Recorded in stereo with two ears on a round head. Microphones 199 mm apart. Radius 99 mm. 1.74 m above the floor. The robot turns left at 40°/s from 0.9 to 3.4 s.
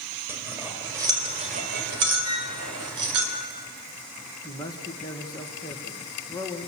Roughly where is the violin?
Right.